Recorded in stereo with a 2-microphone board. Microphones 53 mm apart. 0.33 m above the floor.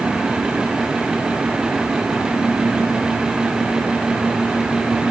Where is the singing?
No singing in this recording.